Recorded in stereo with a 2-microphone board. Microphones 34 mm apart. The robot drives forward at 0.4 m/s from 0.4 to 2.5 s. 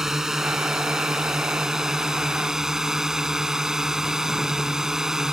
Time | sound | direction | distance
0.0 | a drone | 15° right (ahead or behind) | ?